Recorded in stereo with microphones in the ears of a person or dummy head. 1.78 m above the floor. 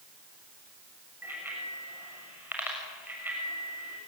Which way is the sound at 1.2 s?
10° right (ahead or behind).